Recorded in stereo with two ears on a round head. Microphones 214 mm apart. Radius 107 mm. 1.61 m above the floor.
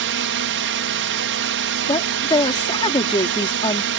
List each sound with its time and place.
0.0 s a drone: 55° right (ahead or behind)
1.8 s a woman speaking: 20° left (ahead or behind)